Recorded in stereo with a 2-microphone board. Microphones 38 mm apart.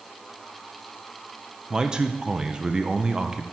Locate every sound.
1.7 s a man speaking: 15° right (ahead or behind), 0.6 m